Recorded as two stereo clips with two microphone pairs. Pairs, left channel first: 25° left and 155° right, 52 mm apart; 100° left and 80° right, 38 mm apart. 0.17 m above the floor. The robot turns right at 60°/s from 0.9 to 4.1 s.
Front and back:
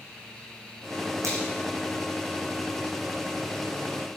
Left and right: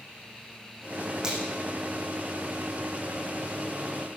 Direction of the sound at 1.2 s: 150° right.